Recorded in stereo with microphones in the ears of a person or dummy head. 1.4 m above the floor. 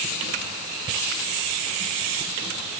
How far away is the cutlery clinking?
No cutlery clinking in this recording.